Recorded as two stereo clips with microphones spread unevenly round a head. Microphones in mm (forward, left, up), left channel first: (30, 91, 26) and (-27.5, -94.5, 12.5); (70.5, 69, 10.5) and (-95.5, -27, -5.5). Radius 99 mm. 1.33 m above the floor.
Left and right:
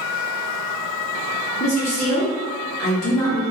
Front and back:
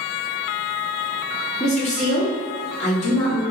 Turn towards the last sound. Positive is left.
turn(degrees=85)